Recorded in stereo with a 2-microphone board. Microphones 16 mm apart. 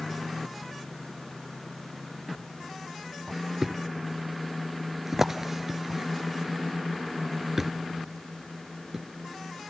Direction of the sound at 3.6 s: 20° right (ahead or behind).